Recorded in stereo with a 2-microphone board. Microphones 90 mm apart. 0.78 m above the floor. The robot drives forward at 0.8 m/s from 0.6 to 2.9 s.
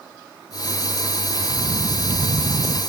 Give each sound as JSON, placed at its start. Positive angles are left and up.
{"t": 1.3, "sound": "footsteps", "side_deg": -10, "distance_m": 0.8}